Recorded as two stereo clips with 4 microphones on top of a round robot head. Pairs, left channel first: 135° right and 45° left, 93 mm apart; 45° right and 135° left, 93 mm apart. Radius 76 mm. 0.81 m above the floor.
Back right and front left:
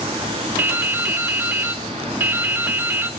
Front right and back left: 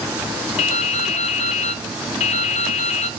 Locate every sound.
0.6 s dripping: 25° right, 0.6 m